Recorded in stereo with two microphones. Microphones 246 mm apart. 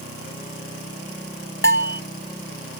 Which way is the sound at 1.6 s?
55° left (ahead or behind).